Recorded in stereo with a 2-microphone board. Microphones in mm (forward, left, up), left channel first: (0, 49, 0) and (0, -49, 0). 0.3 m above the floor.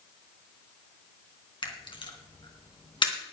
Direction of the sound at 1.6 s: 55° left (ahead or behind).